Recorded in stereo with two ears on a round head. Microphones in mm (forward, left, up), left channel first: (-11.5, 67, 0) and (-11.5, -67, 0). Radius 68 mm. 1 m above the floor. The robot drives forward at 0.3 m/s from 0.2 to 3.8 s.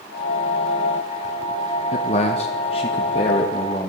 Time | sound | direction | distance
1.9 | a man speaking | 45° left (ahead or behind) | 0.6 m